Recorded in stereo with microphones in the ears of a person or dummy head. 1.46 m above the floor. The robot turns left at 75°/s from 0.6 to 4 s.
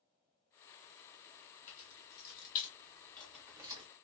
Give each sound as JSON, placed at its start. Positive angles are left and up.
{"t": 1.7, "sound": "keys jangling", "side_deg": 50, "distance_m": 1.0}